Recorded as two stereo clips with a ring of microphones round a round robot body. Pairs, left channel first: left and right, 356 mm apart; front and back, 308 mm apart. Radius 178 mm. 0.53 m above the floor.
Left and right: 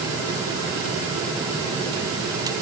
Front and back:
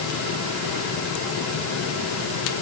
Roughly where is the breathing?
No breathing in this recording.